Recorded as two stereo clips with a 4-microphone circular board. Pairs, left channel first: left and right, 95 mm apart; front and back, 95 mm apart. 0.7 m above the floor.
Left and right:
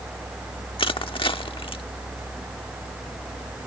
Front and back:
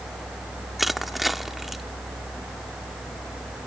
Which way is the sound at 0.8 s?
90° left.